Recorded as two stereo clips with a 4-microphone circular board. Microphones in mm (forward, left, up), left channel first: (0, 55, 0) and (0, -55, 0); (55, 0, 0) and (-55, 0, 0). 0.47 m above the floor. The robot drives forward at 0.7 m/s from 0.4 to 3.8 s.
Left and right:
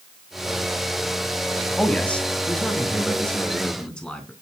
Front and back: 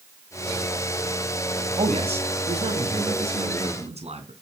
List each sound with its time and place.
1.8 s a man speaking: 170° left, 2.5 m; by 4.3 s 175° left, 3.5 m